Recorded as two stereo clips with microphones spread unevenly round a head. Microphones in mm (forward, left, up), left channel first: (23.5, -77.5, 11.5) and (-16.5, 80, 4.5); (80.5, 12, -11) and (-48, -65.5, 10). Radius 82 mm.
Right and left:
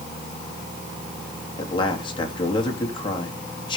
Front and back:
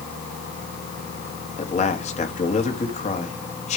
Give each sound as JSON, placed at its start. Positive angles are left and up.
{"t": 1.6, "sound": "a man speaking", "azimuth_deg": -15, "distance_m": 2.5}